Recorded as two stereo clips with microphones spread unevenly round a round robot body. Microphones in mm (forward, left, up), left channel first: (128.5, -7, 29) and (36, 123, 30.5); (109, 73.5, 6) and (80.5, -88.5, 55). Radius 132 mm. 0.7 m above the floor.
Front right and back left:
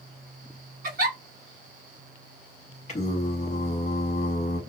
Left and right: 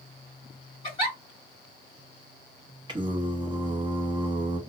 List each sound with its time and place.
0.8 s a giggle: 130° left, 1.9 m
2.9 s singing: 30° right, 0.9 m